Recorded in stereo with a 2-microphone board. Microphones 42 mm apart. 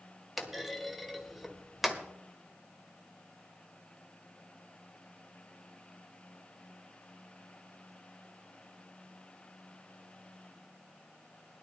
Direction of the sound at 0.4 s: 5° right (ahead or behind).